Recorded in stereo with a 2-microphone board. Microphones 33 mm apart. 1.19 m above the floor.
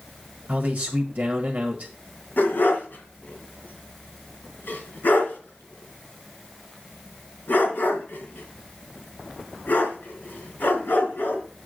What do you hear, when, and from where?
0.5 s a man speaking: 35° right (ahead or behind), 1.5 m
2.4 s a dog barking: 70° left (ahead or behind), 2.5 m